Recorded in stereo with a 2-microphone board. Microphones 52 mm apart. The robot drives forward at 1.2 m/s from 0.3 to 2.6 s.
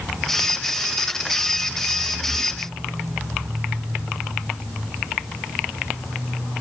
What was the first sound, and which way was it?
Only background noise.